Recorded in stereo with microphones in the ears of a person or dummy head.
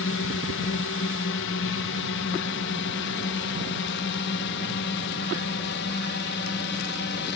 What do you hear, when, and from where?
0.0 s a drone: 65° left (ahead or behind); by 7.4 s 60° left (ahead or behind)